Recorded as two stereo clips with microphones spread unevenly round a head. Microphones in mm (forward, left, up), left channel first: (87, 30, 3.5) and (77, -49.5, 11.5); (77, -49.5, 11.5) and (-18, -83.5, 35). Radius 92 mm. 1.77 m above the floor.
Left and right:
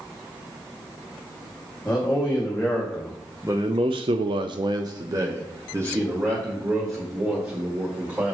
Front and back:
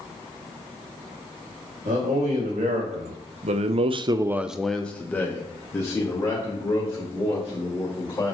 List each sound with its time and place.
1.9 s a man speaking: 160° left, 2.5 m; by 8.3 s 35° right, 4.5 m